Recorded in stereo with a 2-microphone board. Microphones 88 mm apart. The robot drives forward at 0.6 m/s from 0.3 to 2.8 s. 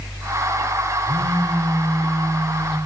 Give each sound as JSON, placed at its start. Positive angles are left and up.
{"t": 1.1, "sound": "a phone buzzing", "side_deg": -60, "distance_m": 9.5}